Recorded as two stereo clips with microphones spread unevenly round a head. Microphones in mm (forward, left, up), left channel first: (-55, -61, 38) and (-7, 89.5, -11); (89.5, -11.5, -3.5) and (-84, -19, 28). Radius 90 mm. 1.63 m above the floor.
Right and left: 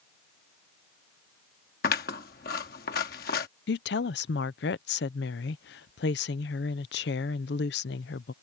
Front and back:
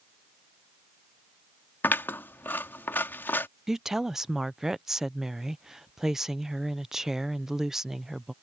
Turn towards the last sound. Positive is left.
turn(degrees=-95)